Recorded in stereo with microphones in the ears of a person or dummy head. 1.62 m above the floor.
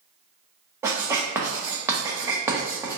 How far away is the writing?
About 0.7 m.